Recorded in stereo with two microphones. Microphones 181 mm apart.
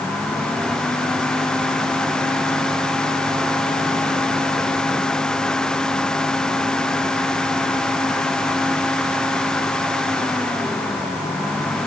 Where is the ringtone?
I don't hear a ringtone.